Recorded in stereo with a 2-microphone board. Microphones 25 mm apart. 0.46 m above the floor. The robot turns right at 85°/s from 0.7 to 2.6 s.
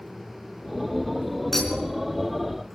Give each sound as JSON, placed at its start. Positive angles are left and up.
{"t": 1.5, "sound": "a clink", "side_deg": 10, "distance_m": 3.5}